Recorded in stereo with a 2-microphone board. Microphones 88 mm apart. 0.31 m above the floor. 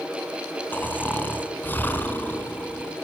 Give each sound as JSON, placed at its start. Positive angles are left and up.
{"t": 0.7, "sound": "snoring", "side_deg": 20, "distance_m": 2.5}